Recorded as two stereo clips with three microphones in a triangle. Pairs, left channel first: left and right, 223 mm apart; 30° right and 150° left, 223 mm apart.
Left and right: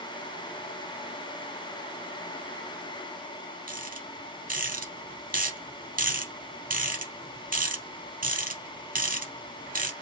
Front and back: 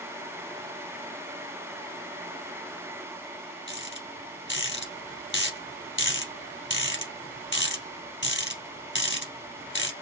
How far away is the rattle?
About 2.5 m.